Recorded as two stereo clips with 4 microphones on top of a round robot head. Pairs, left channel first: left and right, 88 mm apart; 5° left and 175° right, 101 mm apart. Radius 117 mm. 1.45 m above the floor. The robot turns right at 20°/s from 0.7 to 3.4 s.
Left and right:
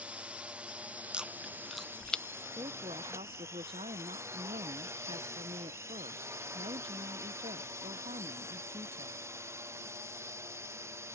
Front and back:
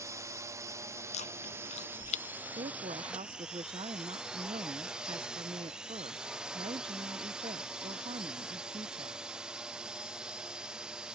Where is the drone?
155° right; by 11.2 s 100° right.